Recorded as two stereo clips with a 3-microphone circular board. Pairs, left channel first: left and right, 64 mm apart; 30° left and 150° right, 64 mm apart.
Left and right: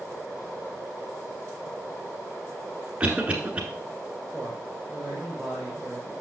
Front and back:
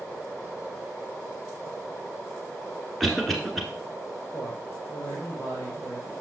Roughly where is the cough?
Ahead right.